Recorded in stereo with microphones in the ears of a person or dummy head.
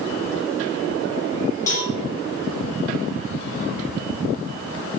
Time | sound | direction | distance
1.7 | a cowbell | 20° left (ahead or behind) | 2 m